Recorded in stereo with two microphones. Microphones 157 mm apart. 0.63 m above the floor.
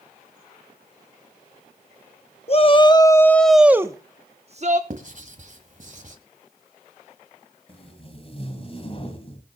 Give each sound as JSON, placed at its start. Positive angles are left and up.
{"t": 2.5, "sound": "a shout", "side_deg": 40, "distance_m": 1.2}
{"t": 4.9, "sound": "writing", "side_deg": -55, "distance_m": 1.8}
{"t": 7.7, "sound": "tape being pulled", "side_deg": 40, "distance_m": 1.9}